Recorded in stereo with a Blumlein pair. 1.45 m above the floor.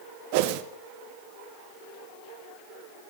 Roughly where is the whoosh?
Ahead right.